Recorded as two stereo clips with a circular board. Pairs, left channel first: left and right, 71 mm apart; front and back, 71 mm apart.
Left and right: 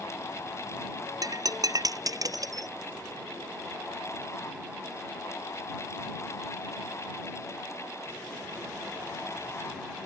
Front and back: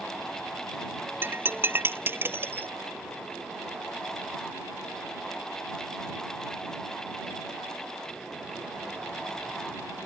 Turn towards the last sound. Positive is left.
turn(degrees=-120)